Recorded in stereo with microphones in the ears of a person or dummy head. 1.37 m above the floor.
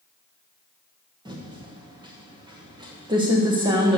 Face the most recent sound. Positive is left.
turn(degrees=-25)  # may be behind; listen again after turning